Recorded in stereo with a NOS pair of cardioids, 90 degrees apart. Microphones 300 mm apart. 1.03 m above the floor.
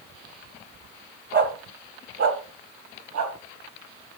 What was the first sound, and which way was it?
A dog barking, 40° right.